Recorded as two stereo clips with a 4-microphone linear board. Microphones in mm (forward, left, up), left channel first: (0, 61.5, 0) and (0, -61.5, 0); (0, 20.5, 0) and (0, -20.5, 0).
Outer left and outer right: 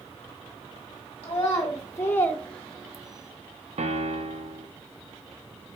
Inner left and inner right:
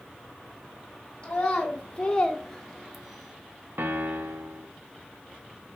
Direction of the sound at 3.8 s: 65° right (ahead or behind).